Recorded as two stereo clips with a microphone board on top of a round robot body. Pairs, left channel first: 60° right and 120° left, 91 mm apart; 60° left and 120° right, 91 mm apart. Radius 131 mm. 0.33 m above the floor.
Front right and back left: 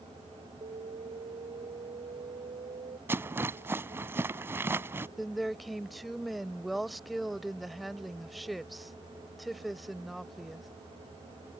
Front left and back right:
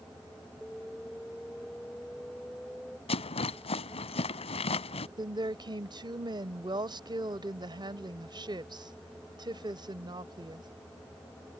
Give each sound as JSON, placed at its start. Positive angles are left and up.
{"t": 0.6, "sound": "an alarm", "azimuth_deg": 145}
{"t": 3.1, "sound": "a rattle", "azimuth_deg": 55}
{"t": 5.2, "sound": "a woman speaking", "azimuth_deg": -150}